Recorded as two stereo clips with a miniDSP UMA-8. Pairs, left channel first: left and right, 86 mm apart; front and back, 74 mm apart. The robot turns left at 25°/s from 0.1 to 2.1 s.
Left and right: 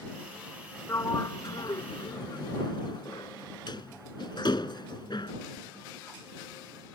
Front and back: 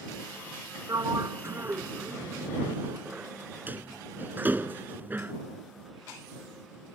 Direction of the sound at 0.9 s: 150° left.